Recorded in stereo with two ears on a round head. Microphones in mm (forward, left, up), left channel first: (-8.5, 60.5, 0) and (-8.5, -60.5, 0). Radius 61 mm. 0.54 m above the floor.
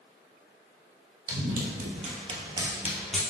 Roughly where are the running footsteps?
Right.